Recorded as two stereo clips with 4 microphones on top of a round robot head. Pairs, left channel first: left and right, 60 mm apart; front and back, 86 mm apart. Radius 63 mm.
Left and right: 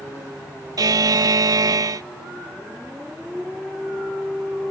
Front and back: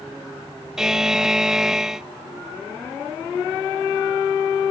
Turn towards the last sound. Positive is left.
turn(degrees=-100)